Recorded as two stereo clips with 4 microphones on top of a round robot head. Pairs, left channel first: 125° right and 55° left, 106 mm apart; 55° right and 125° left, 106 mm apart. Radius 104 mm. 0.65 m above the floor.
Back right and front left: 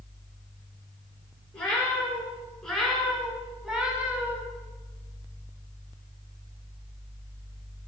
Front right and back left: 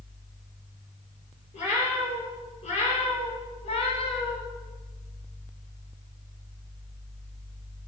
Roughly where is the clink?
No clink in this recording.